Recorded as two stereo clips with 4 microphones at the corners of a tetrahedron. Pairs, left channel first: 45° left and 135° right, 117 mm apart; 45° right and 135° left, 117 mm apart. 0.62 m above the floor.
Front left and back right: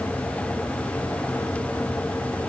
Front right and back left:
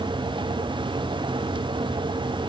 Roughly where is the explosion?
I don't hear an explosion.